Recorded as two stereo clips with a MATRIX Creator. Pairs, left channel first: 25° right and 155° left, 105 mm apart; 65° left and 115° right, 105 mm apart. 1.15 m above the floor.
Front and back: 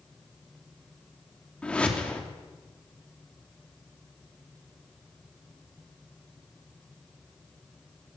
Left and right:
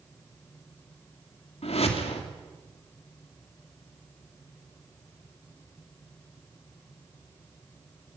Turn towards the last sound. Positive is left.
turn(degrees=55)